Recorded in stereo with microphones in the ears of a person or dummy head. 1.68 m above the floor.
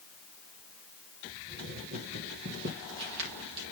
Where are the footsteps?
50° right (ahead or behind), 3 m; by 3.6 s 55° right (ahead or behind), 3.5 m.